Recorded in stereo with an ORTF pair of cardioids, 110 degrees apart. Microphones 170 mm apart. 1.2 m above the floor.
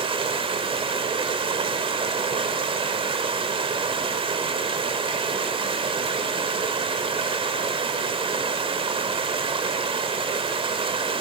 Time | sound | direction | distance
0.0 | running water | 35° right | 2 m